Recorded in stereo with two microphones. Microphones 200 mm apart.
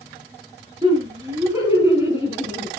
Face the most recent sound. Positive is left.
turn(degrees=-10)  # may be behind; listen again after turning